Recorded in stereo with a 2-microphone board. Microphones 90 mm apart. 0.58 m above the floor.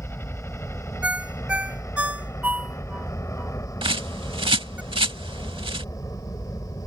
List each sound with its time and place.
0.0 s a helicopter: 25° left (ahead or behind); by 6.9 s 40° left (ahead or behind)
1.0 s a ringtone: 15° right (ahead or behind)
3.8 s a bird: 75° right (ahead or behind)